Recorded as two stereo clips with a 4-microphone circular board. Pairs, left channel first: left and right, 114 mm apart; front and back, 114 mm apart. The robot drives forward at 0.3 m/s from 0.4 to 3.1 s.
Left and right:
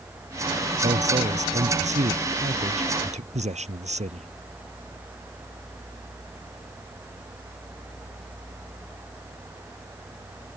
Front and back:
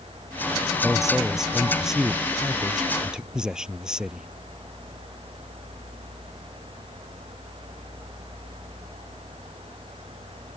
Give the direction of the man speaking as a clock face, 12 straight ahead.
3 o'clock.